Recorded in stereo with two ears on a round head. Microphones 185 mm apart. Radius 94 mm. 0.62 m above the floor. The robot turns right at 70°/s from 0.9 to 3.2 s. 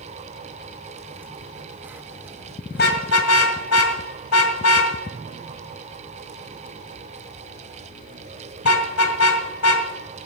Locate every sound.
2.7 s a car horn: 45° left (ahead or behind), 2 m; by 9.9 s 75° left (ahead or behind), 2 m